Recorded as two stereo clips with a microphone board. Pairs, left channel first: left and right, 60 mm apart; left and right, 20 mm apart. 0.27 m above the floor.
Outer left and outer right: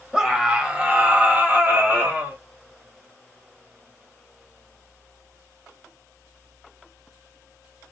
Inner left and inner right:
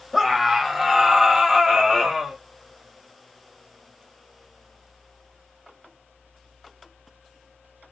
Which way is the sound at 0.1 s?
10° right (ahead or behind).